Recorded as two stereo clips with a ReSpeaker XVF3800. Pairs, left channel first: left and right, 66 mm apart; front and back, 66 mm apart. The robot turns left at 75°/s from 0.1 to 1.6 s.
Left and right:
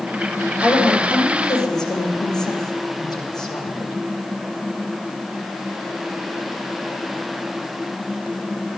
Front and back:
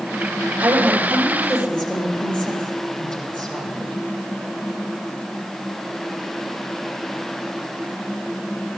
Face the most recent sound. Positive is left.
turn(degrees=75)